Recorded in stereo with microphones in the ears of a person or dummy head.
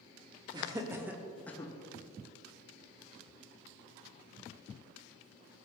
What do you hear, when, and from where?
0.5 s laughter: 15° right (ahead or behind), 0.9 m; by 1.7 s 20° left (ahead or behind), 0.7 m